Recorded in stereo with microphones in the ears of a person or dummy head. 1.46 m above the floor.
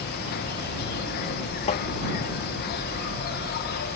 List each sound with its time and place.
0.0 s an insect: 55° left (ahead or behind)
1.7 s tapping: 35° left (ahead or behind)